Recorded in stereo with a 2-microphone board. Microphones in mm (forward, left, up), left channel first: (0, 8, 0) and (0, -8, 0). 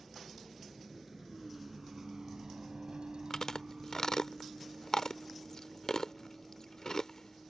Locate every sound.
0.0 s a vehicle: 5° right (ahead or behind); by 7.5 s 25° right (ahead or behind)
3.3 s chewing: 40° left (ahead or behind)